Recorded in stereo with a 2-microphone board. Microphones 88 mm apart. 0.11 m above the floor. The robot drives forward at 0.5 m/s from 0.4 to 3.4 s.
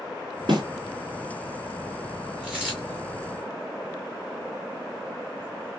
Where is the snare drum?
60° right (ahead or behind), 3.5 m.